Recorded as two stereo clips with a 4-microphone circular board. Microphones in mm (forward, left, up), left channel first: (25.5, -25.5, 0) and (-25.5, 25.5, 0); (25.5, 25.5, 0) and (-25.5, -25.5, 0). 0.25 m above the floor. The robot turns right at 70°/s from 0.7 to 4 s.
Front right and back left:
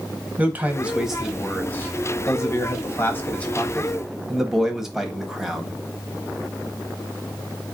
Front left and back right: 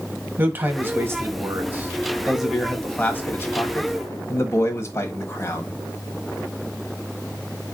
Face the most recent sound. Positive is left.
turn(degrees=55)